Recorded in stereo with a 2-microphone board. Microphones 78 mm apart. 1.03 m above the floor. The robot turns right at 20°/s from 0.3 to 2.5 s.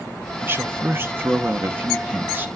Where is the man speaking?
100° right, 0.7 m; by 2.5 s 60° right, 0.7 m.